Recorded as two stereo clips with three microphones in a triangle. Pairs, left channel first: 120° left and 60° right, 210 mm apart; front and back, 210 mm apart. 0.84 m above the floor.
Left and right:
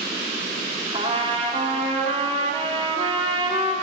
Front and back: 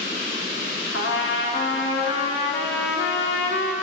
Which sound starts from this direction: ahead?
A trumpet, at 0.9 s.